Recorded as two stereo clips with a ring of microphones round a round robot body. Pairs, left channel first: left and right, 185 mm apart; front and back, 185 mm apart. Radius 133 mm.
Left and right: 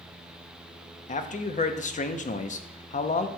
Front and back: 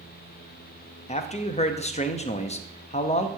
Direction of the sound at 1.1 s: 50° left.